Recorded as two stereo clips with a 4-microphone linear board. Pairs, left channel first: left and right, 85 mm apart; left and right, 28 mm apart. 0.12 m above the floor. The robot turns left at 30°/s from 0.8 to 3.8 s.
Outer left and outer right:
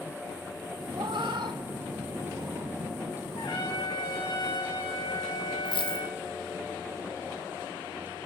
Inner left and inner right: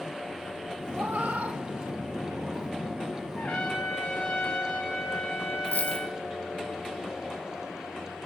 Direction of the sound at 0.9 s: 75° right (ahead or behind).